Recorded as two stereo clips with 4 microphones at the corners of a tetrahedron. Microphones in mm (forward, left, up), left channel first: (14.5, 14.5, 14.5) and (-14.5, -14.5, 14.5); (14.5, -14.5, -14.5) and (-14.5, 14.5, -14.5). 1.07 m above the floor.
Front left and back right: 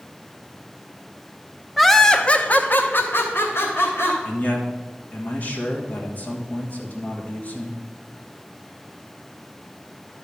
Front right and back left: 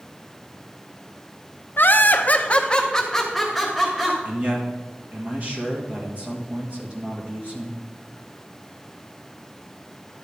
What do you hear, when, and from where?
1.8 s laughter: 45° right, 0.8 m; by 4.2 s 50° left, 1.6 m
4.2 s a man speaking: 90° left, 1.5 m